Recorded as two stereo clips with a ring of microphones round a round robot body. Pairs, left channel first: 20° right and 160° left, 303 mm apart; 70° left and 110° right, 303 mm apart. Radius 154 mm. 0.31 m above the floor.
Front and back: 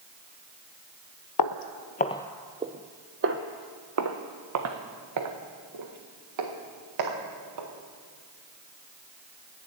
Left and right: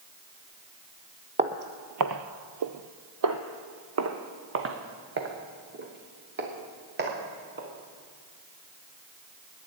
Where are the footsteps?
45° right, 0.6 m; by 7.7 s 170° right, 3.5 m.